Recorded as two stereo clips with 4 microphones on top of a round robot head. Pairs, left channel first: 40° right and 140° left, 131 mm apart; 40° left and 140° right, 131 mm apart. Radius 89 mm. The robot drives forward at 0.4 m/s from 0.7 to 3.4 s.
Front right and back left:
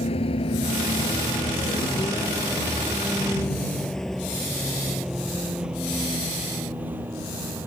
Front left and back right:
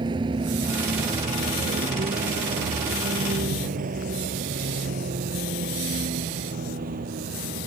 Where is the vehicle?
85° right; by 7.7 s 145° right.